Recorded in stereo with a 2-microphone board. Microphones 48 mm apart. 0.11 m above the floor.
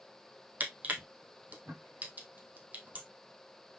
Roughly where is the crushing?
Right.